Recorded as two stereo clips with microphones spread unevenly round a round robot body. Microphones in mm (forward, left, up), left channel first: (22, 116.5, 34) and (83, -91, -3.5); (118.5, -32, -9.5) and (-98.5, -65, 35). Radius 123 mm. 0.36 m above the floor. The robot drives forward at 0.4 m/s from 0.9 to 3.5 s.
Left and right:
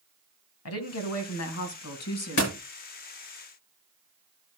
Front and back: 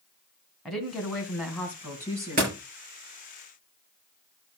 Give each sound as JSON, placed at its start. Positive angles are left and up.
{"t": 0.7, "sound": "a woman speaking", "azimuth_deg": 95, "distance_m": 2.5}
{"t": 2.4, "sound": "a door slam", "azimuth_deg": 130, "distance_m": 6.5}